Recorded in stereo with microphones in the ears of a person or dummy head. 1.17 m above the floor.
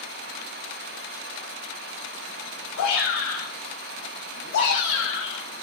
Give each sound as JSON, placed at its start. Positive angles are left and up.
{"t": 2.8, "sound": "a shout", "side_deg": 75, "distance_m": 7.0}